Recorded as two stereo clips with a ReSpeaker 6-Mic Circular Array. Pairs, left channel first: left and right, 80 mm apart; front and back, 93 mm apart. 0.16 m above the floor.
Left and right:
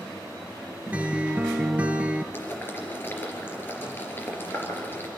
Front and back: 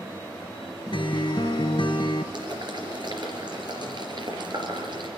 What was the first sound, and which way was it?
A guitar, 20° right.